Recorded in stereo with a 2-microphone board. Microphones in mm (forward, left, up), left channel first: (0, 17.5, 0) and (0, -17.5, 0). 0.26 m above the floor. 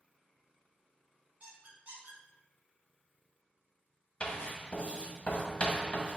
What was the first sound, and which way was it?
A squeak, 55° right (ahead or behind).